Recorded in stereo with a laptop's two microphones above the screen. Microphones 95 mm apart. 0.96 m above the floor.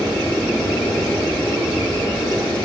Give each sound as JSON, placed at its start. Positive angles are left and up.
{"t": 0.0, "sound": "a machine running", "side_deg": 10, "distance_m": 1.2}